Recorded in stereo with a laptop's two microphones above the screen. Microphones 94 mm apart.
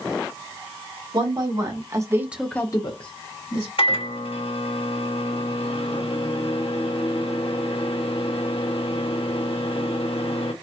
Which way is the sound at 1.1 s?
50° right (ahead or behind).